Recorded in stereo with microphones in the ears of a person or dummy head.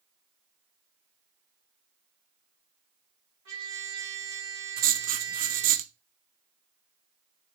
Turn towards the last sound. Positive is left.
turn(degrees=-40)  # may be behind; listen again after turning